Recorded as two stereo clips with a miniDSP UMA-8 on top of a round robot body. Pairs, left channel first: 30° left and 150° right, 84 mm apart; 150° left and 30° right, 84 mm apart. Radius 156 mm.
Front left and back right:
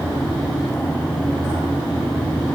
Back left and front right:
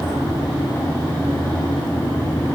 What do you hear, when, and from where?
Only background noise.